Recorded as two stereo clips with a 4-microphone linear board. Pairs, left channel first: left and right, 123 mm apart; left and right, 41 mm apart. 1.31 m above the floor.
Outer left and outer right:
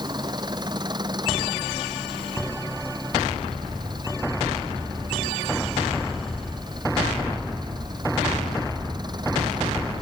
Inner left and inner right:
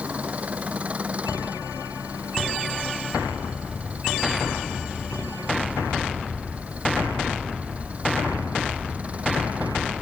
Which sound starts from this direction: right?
An engine running, at 0.0 s.